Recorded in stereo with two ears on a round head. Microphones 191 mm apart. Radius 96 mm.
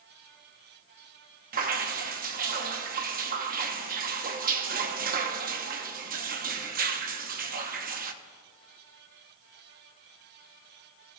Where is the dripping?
45° right (ahead or behind), 0.9 m.